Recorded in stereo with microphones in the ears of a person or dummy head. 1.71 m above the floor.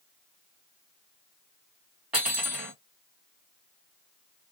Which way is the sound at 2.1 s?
5° right (ahead or behind).